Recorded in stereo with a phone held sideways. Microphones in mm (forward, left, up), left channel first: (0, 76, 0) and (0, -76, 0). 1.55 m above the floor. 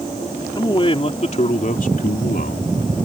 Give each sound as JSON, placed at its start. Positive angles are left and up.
{"t": 0.6, "sound": "a man speaking", "side_deg": 30}